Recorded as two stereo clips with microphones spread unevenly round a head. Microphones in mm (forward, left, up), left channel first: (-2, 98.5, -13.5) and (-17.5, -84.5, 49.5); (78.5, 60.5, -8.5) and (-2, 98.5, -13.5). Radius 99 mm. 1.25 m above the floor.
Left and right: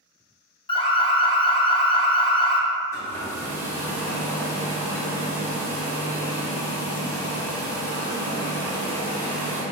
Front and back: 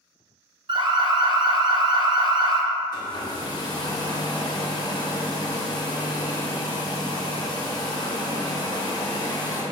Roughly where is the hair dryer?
Ahead.